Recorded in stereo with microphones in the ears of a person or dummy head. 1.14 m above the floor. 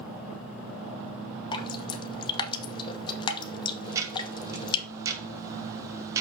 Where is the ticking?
15° right (ahead or behind), 1.4 m.